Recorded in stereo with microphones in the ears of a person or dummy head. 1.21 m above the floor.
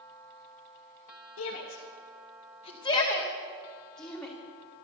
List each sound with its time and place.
1.4 s a shout: 85° left, 1.4 m; by 4.3 s centre (ahead or behind), 3 m